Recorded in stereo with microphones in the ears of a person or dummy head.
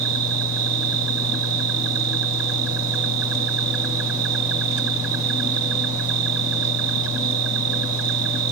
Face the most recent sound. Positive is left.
turn(degrees=-85)